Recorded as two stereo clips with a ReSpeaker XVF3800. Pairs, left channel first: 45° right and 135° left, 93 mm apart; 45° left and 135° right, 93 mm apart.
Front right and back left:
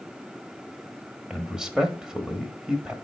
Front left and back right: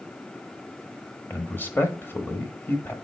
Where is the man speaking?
65° left, 1.0 m.